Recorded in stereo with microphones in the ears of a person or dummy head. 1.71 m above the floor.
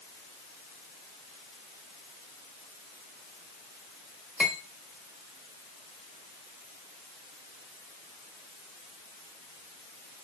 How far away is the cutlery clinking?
About 1.3 m.